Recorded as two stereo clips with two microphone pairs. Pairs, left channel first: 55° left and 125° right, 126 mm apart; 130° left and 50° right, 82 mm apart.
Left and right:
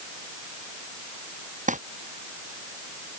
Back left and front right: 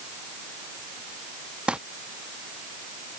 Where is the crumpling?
130° right.